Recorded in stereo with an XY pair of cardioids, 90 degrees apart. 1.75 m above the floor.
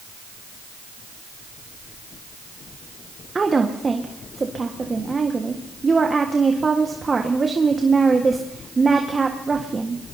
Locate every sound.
3.4 s a woman speaking: 30° right, 1.6 m